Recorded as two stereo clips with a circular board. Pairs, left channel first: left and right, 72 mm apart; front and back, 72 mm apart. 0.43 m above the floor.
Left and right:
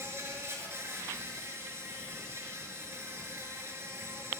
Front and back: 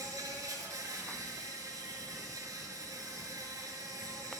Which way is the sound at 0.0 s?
145° right.